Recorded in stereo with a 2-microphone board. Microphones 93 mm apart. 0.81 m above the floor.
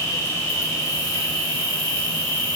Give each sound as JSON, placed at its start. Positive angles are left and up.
{"t": 0.0, "sound": "an insect", "side_deg": 35, "distance_m": 1.9}